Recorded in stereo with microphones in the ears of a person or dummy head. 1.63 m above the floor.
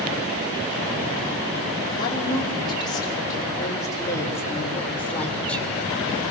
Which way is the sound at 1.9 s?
20° left (ahead or behind).